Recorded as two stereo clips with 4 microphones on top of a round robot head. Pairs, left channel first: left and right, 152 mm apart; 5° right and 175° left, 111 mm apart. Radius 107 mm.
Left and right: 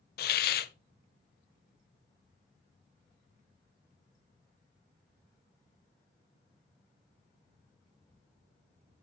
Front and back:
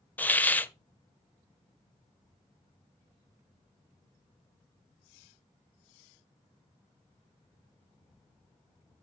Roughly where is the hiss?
Left.